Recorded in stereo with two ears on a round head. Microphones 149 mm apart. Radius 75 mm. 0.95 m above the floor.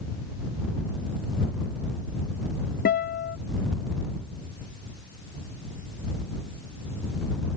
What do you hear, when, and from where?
2.9 s a guitar: 60° left (ahead or behind)